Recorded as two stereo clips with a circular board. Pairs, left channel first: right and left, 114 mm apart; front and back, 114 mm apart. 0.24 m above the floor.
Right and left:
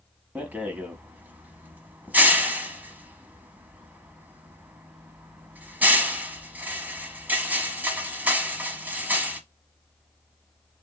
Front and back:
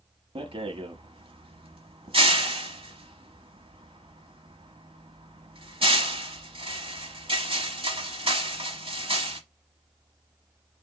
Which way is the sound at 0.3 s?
165° left.